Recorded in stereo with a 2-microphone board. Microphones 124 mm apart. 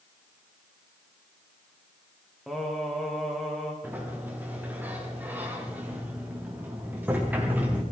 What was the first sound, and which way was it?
Singing, centre (ahead or behind).